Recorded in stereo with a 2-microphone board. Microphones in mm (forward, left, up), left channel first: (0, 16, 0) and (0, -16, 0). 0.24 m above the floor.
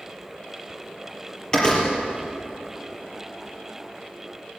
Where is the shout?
No shout in this recording.